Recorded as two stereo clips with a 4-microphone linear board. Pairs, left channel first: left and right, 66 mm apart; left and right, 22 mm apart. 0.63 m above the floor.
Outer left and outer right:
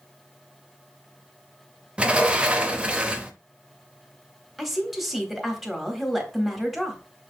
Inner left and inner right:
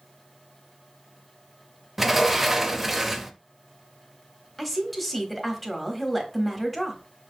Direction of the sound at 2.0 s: 15° right (ahead or behind).